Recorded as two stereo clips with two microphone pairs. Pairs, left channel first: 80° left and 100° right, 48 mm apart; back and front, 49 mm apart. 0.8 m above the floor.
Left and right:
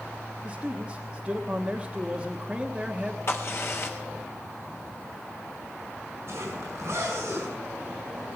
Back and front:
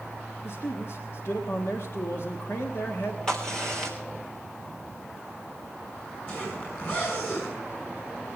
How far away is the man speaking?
About 1.3 m.